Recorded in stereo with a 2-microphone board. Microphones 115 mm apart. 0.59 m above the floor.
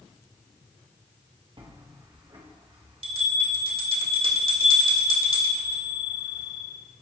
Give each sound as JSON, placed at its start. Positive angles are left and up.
{"t": 1.6, "sound": "a bell", "side_deg": -50, "distance_m": 1.8}